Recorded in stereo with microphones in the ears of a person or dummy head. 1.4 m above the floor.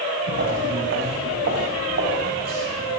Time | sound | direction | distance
0.3 | footsteps | 75° right (ahead or behind) | 6 m